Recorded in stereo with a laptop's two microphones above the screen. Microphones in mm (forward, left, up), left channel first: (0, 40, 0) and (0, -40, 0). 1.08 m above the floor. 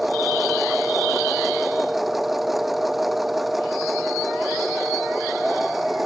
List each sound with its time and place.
0.0 s a machine running: centre (ahead or behind)